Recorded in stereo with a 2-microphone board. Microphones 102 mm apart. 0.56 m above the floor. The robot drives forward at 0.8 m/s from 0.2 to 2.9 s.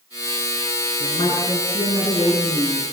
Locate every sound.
1.0 s a woman speaking: 60° left (ahead or behind), 7.5 m; by 2.9 s 70° left (ahead or behind), 7 m